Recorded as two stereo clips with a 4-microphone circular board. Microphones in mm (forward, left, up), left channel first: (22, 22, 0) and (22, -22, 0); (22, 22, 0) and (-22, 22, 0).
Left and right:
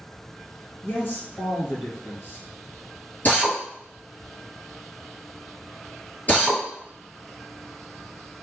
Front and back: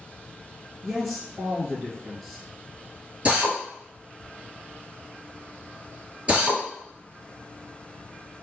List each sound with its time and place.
0.8 s a man speaking: 90° left, 1.8 m
3.2 s a drill: 130° left, 2 m